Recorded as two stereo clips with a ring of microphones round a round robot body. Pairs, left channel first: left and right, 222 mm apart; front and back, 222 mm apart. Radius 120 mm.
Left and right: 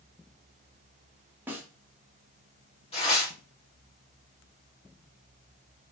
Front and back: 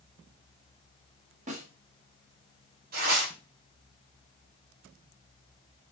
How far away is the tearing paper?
About 2 m.